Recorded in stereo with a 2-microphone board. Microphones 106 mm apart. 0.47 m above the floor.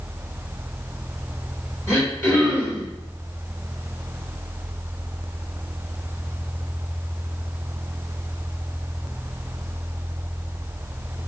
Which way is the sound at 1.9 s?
25° left (ahead or behind).